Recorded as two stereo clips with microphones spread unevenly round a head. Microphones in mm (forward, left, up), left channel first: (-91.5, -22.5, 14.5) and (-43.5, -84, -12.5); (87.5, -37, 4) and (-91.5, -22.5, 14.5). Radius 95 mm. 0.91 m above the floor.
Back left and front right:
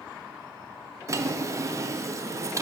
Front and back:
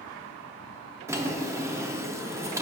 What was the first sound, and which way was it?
A drawer, 110° right.